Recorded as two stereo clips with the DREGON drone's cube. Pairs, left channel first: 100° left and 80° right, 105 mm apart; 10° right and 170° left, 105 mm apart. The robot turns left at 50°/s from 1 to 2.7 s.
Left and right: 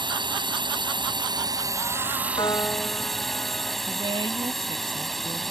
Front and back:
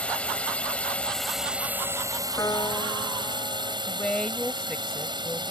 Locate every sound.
0.0 s a drone: 85° right; by 5.5 s 170° right
2.4 s a piano: 50° left; by 3.8 s 35° left
3.9 s a woman speaking: 90° right